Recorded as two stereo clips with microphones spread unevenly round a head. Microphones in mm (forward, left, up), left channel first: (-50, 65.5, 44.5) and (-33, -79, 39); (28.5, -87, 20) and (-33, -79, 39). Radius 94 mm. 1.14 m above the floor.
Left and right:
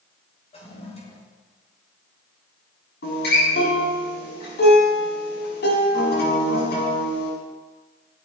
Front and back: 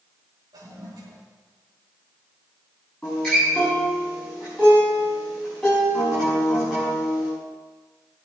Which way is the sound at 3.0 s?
75° left.